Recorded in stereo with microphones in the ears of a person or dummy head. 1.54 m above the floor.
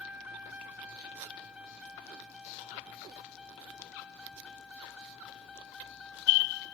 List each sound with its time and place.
0.0 s a vehicle: 10° right (ahead or behind); by 6.7 s centre (ahead or behind)